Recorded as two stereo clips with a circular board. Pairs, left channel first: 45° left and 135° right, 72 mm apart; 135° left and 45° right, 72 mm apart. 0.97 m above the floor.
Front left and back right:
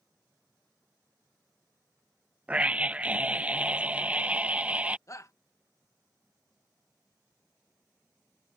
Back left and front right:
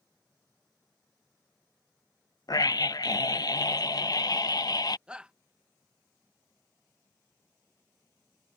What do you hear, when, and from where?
2.5 s a scream: 155° left
5.1 s a shout: 25° left